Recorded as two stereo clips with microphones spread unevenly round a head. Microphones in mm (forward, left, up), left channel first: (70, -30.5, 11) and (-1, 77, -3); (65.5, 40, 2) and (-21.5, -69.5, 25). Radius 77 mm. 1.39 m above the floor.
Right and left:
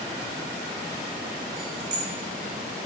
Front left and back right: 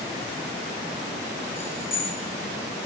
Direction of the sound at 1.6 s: 130° left.